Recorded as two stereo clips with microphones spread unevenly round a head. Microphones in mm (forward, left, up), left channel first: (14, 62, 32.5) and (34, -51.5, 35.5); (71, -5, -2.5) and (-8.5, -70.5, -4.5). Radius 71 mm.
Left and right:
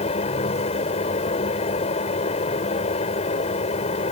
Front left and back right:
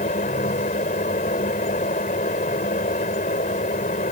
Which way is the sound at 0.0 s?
65° left.